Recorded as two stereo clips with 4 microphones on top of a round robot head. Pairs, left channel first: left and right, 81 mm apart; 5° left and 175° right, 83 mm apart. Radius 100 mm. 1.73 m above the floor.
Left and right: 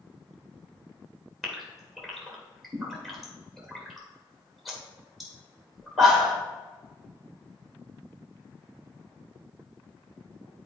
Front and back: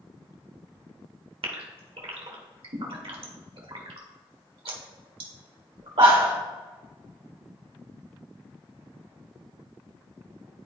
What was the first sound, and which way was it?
A gasp, straight behind.